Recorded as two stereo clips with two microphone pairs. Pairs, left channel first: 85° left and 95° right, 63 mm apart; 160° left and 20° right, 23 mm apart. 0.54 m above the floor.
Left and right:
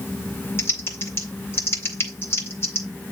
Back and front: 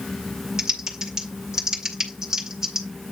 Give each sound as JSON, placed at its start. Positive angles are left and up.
{"t": 0.6, "sound": "typing on a keyboard", "azimuth_deg": 45, "distance_m": 2.0}